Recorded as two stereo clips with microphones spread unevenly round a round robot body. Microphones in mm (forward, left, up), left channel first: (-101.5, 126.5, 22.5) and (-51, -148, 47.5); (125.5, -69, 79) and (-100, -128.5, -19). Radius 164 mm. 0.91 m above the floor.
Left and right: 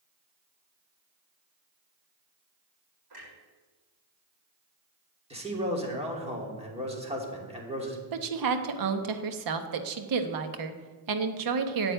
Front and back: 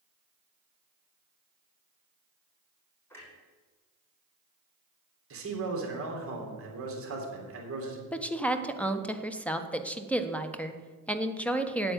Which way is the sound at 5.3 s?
150° right.